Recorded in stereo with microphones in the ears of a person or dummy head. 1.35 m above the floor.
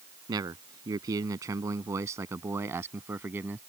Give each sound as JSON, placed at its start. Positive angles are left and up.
{"t": 0.3, "sound": "a man speaking", "side_deg": -20}